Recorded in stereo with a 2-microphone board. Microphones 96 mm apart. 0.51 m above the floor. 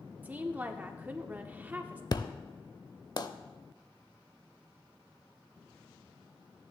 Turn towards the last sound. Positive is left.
turn(degrees=45)  # may be behind; listen again after turning